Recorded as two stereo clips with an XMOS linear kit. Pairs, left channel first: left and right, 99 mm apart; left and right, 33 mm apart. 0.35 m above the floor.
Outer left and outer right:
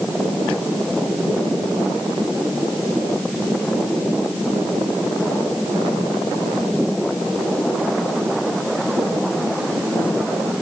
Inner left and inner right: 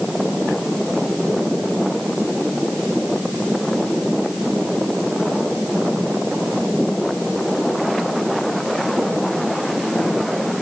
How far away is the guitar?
I don't hear a guitar.